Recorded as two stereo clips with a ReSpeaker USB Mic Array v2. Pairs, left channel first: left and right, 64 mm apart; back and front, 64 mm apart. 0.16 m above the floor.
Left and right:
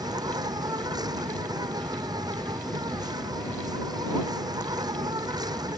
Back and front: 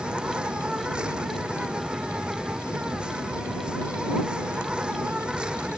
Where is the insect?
75° right.